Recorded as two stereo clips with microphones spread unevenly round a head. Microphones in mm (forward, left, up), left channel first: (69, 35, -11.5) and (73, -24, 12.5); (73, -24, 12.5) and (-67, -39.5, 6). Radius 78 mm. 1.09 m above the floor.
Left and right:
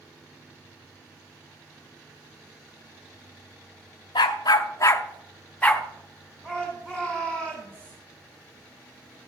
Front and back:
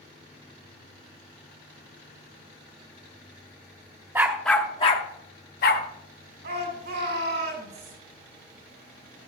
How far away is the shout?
About 4 m.